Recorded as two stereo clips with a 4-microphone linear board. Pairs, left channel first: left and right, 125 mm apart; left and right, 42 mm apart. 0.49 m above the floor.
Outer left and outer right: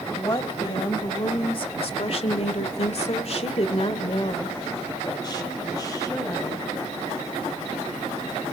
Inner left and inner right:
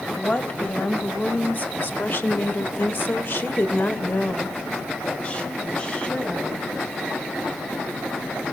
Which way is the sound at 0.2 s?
30° left (ahead or behind).